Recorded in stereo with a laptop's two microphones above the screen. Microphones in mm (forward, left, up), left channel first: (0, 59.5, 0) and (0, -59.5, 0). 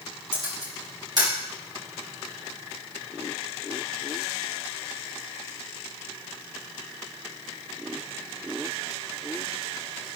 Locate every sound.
0.3 s a camera shutter: 45° right (ahead or behind), 5 m